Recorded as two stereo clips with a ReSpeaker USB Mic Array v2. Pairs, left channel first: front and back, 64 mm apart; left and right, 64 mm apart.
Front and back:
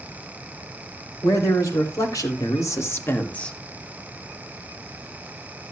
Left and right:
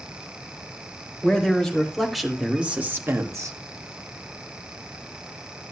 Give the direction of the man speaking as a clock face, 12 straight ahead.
12 o'clock.